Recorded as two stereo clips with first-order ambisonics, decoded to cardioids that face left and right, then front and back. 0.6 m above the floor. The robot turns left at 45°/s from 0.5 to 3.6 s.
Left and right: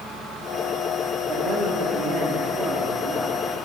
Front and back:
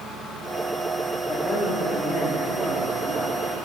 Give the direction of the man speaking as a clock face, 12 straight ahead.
2 o'clock.